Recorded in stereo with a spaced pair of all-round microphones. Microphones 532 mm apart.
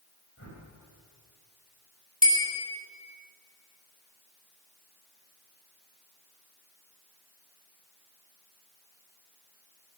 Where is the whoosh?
25° left (ahead or behind), 4.5 m.